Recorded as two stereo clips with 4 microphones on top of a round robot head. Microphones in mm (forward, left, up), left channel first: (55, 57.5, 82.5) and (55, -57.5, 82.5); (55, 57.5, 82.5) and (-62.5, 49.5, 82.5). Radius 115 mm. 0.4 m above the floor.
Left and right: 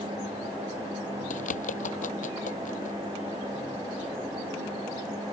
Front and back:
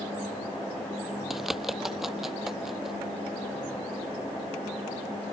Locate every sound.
1.3 s a bird: 95° left